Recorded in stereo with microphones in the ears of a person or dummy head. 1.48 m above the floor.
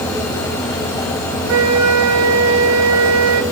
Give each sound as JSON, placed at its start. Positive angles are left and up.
{"t": 1.5, "sound": "a flute", "side_deg": -85, "distance_m": 1.8}